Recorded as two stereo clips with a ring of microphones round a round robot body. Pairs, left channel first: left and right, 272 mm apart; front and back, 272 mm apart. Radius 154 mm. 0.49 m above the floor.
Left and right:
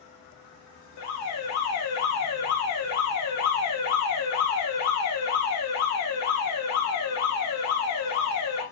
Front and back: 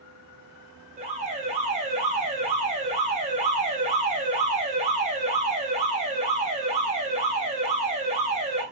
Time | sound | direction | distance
1.0 | an alarm | 115° left | 3.5 m